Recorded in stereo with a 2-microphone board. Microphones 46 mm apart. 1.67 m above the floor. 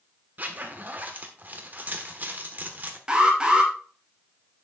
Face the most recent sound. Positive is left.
turn(degrees=-20)  # may be behind; listen again after turning